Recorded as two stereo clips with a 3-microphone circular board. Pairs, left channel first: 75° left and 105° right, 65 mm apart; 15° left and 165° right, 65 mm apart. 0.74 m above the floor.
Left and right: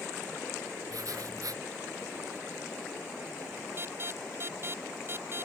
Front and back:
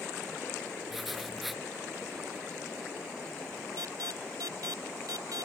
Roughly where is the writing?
Right.